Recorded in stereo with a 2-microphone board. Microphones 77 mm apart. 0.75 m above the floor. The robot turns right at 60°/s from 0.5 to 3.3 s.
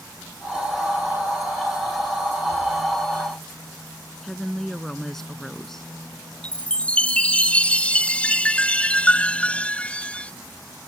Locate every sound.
4.2 s a woman speaking: 5° left (ahead or behind)
6.4 s a chime: 15° left (ahead or behind)